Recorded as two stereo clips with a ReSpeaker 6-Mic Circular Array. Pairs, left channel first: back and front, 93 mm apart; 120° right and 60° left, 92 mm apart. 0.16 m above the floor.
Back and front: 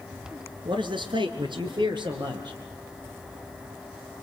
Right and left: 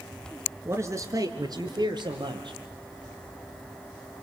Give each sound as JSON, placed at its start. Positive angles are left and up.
{"t": 0.7, "sound": "a man speaking", "azimuth_deg": 0, "distance_m": 3.0}